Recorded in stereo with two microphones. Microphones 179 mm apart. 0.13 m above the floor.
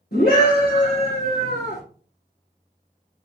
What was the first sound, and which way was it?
A scream, 70° left (ahead or behind).